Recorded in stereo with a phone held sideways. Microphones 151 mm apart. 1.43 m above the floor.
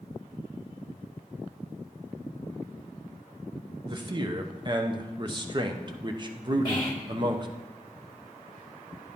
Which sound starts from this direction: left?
Whispering, at 6.7 s.